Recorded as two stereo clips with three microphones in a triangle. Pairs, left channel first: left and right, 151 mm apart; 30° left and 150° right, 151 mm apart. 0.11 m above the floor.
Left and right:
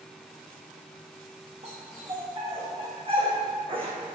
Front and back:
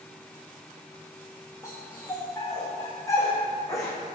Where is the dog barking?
40° right, 4.5 m; by 4.0 s 35° right, 3 m.